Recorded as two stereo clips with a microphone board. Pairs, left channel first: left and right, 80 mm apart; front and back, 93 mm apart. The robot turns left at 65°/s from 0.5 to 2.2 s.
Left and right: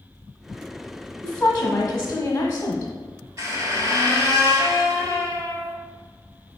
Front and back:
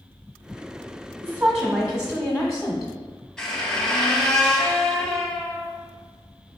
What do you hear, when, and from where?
1.2 s a woman speaking: 145° left, 1.1 m; by 2.9 s 80° left, 1.1 m
3.4 s a squeak: 80° right, 0.9 m